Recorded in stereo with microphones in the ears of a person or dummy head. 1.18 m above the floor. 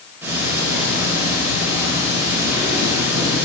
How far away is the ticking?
About 5 m.